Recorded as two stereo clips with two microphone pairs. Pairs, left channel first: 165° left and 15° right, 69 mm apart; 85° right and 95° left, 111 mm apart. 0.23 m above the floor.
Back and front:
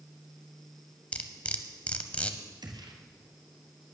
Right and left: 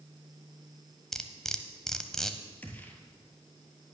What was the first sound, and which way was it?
Cutlery clinking, 160° right.